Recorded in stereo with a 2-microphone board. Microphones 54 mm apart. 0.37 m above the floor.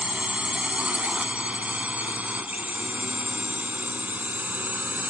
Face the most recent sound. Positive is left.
turn(degrees=-35)  # may be behind; listen again after turning